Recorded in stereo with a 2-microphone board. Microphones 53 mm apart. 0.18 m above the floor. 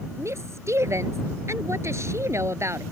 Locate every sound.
0.2 s a woman speaking: 65° right (ahead or behind)